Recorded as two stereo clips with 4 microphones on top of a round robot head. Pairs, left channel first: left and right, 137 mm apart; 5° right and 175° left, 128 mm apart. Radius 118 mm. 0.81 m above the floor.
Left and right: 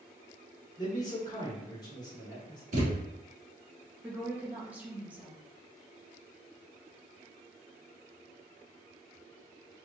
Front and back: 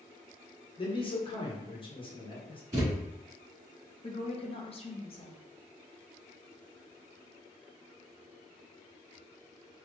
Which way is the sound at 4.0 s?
15° right.